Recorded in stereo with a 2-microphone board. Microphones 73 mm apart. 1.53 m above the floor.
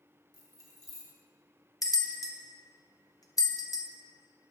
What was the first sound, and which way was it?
Keys jangling, 55° right (ahead or behind).